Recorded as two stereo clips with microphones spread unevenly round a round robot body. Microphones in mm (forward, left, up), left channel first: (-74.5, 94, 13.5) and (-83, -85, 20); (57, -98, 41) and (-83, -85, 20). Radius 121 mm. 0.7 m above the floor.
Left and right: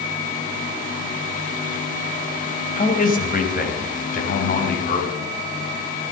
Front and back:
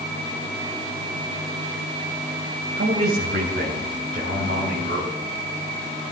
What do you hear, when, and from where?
2.8 s a man speaking: 130° left, 2.5 m; by 5.1 s 120° left, 4.5 m